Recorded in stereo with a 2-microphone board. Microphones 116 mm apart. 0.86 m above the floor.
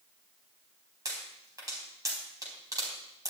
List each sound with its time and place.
1.1 s a pop: 30° right (ahead or behind), 4 m